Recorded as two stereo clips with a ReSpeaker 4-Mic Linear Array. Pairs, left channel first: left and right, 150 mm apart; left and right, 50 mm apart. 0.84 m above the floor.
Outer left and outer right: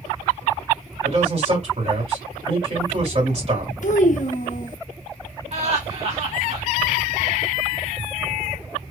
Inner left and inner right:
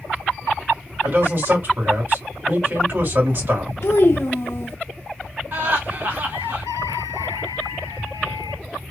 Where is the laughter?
45° right (ahead or behind), 1.4 m.